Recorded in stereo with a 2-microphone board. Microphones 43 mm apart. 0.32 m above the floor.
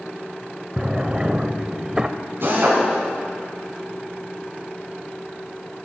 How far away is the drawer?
About 0.5 m.